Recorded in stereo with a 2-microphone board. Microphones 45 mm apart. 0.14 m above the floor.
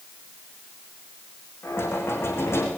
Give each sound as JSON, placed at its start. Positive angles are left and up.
{"t": 1.6, "sound": "knocking", "side_deg": 65, "distance_m": 6.5}